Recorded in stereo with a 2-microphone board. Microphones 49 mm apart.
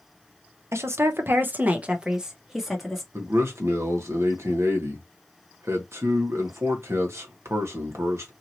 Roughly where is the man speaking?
Right.